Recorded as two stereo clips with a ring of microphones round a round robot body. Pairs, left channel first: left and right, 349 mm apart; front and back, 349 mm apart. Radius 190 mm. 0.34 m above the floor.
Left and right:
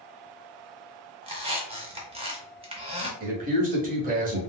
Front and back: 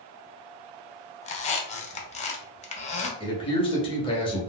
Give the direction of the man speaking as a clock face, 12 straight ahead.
2 o'clock.